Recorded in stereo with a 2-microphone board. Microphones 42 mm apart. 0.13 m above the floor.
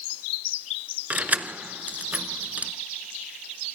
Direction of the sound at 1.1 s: 35° right (ahead or behind).